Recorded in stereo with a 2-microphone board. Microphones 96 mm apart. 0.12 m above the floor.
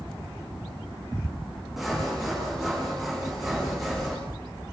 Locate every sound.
1.8 s sawing: centre (ahead or behind), 7.5 m